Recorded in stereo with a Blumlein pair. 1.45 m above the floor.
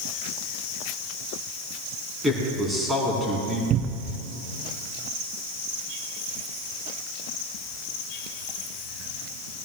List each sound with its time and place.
2.2 s a man speaking: 10° right, 4 m
3.7 s a cupboard door: 30° right, 0.5 m